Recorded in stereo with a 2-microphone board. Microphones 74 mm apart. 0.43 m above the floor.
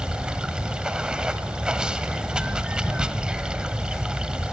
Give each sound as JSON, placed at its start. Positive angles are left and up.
{"t": 0.0, "sound": "running water", "side_deg": -10, "distance_m": 1.0}